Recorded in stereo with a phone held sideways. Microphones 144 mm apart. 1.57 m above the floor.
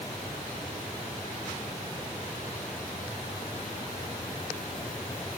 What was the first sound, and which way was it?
Only background noise.